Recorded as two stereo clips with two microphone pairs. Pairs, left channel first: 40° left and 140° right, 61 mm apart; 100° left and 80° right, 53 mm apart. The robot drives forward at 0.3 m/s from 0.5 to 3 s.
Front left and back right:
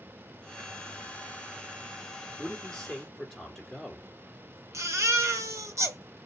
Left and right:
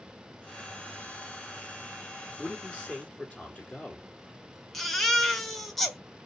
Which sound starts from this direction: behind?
A baby crying, at 4.7 s.